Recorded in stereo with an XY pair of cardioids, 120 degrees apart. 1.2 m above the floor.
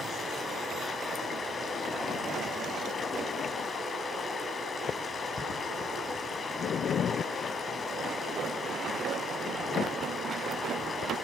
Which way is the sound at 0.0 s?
35° left.